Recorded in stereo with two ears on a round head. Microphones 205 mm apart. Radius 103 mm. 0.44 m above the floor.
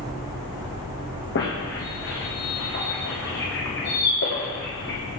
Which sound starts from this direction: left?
A squeak, at 1.4 s.